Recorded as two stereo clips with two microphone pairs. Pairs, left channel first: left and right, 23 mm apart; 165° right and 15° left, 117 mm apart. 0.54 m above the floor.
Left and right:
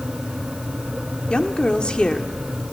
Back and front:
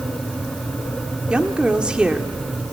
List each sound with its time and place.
1.3 s a woman speaking: 95° left, 1.5 m